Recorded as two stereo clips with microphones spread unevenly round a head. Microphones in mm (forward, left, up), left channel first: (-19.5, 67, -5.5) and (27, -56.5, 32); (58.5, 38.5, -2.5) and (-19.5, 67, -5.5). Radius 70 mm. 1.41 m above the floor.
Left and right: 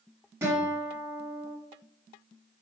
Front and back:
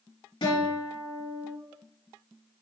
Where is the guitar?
Straight ahead, 2.5 m.